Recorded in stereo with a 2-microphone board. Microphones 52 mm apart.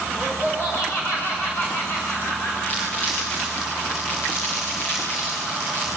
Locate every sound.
0.1 s laughter: 40° left (ahead or behind), 10 m
2.7 s crumpling: 30° left (ahead or behind), 8 m